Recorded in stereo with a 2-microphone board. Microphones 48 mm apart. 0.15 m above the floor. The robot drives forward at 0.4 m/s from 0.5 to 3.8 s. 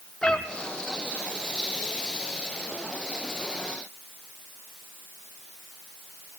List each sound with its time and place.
0.2 s a cat meowing: 15° left (ahead or behind), 0.9 m